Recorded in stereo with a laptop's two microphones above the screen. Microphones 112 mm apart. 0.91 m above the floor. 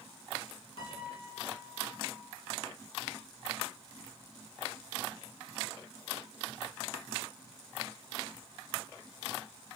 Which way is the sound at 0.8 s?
55° left (ahead or behind).